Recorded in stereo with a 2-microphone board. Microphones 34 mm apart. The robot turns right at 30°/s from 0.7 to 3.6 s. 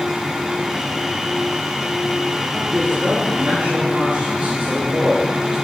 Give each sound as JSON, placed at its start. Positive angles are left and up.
{"t": 2.7, "sound": "a man speaking", "side_deg": -65, "distance_m": 4.5}